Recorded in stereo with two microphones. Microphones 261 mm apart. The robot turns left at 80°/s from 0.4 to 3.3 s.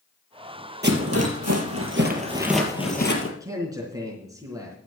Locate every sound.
0.8 s a rattle: 40° right (ahead or behind), 2.5 m; by 3.3 s 60° left (ahead or behind), 2.5 m
3.4 s a man speaking: 15° right (ahead or behind), 3.5 m